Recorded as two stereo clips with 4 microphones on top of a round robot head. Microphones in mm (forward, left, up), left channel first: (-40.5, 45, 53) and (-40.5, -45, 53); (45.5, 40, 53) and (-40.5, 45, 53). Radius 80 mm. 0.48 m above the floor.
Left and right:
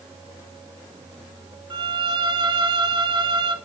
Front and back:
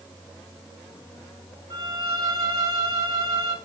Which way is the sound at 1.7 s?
125° right.